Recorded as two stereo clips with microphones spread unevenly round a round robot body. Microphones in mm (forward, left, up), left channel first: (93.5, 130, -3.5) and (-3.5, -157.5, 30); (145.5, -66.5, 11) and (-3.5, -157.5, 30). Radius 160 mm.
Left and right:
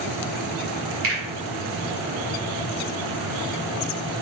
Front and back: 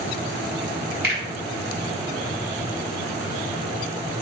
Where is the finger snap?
155° right, 1.3 m.